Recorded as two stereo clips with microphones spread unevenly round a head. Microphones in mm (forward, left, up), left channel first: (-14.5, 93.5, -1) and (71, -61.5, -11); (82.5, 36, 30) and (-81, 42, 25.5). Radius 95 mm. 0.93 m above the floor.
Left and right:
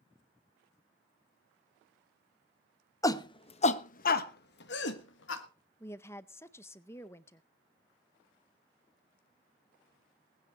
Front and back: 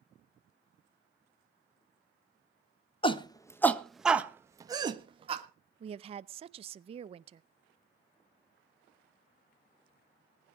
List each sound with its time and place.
3.0 s a shout: 50° left, 1.2 m; by 5.4 s 130° left, 1.8 m
5.8 s a woman speaking: 165° right, 0.5 m